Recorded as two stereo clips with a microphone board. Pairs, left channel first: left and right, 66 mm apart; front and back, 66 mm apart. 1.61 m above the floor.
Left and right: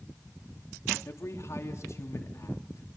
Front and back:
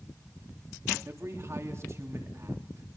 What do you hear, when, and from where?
1.1 s a man speaking: 135° left, 3 m